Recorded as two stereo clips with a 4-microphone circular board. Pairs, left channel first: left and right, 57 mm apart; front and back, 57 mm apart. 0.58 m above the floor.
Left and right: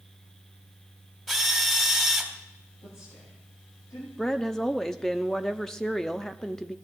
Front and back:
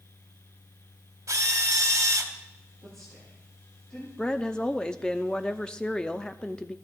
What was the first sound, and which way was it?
A drill, straight behind.